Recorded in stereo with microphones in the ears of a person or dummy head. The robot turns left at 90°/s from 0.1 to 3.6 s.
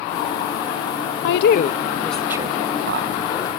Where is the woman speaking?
70° left (ahead or behind), 0.6 m; by 3.1 s 70° right (ahead or behind), 0.6 m.